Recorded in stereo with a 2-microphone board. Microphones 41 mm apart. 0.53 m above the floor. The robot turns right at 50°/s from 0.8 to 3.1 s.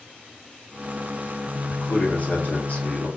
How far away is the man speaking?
About 0.9 m.